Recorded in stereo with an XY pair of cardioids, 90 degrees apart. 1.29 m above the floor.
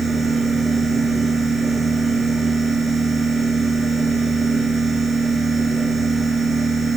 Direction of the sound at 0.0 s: 65° right.